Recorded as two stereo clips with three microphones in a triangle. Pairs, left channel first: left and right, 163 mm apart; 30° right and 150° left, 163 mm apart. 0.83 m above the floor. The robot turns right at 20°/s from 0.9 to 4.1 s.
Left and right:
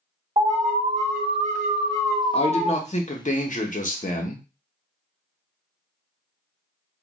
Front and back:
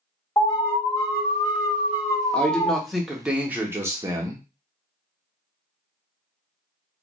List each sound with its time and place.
0.4 s an alarm: 80° right, 1.5 m; by 2.8 s 45° right, 1.5 m
2.3 s a man speaking: 50° left, 0.7 m; by 4.4 s 85° left, 0.7 m